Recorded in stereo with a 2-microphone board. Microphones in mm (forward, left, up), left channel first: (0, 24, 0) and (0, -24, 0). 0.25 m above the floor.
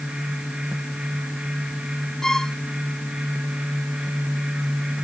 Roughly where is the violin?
Centre.